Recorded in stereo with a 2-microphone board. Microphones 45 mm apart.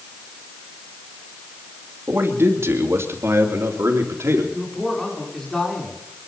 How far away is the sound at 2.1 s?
About 2.5 m.